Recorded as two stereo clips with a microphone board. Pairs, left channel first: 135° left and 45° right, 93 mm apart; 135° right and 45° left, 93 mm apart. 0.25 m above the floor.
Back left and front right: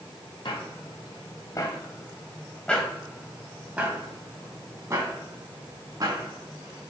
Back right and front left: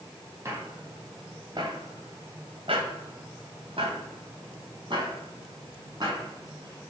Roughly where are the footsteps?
Left.